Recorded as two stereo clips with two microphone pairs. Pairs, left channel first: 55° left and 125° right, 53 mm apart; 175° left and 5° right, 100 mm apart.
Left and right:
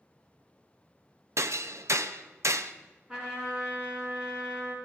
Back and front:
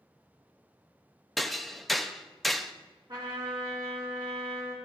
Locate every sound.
1.4 s hammering: 100° right, 0.5 m
3.1 s a trumpet: 50° right, 4.5 m